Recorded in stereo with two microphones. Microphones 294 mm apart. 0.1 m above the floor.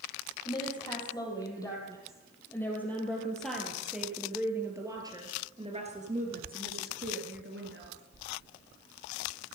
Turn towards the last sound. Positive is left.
turn(degrees=-45)  # may be behind; listen again after turning